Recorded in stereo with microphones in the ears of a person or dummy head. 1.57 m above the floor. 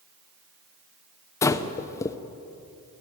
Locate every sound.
1.4 s breathing: 25° left (ahead or behind), 0.9 m